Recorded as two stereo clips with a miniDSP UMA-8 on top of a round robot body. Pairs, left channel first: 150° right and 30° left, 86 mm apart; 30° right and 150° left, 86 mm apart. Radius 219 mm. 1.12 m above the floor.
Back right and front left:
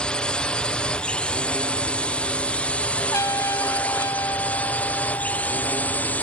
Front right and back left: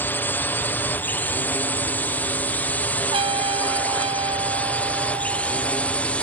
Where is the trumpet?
155° left.